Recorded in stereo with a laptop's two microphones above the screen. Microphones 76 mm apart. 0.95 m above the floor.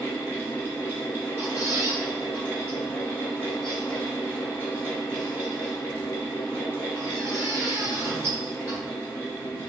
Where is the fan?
30° left (ahead or behind), 1.2 m.